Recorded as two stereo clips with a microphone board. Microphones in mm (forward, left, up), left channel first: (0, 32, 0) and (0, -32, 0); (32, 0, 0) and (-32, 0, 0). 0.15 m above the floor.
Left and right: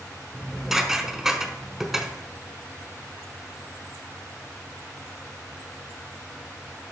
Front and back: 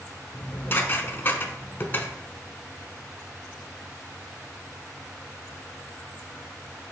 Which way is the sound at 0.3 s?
10° right.